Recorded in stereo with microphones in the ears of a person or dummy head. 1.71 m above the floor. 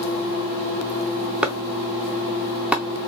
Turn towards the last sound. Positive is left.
turn(degrees=-5)  # may be behind; listen again after turning